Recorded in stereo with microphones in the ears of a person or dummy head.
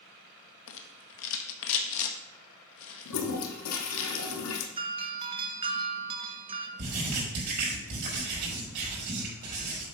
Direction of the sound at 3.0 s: 85° left.